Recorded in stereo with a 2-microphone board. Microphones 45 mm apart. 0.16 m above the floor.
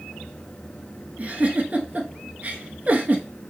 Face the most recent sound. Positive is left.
turn(degrees=-35)  # may be behind; listen again after turning